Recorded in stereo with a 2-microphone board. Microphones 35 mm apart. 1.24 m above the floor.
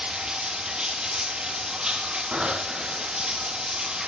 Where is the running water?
20° right (ahead or behind), 2 m.